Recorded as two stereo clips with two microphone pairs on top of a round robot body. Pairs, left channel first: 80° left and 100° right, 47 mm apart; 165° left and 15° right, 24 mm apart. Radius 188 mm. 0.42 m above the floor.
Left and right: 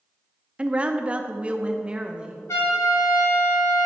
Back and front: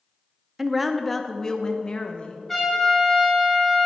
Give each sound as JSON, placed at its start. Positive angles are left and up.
{"t": 0.6, "sound": "a woman speaking", "azimuth_deg": -70, "distance_m": 1.0}
{"t": 2.5, "sound": "a trumpet", "azimuth_deg": 90, "distance_m": 3.0}